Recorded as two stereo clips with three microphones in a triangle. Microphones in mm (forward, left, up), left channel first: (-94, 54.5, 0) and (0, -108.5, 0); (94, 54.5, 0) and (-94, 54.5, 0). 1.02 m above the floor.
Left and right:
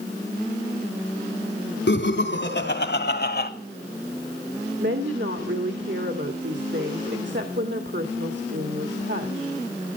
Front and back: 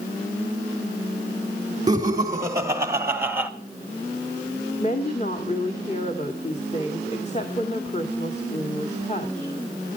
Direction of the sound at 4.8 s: 50° right.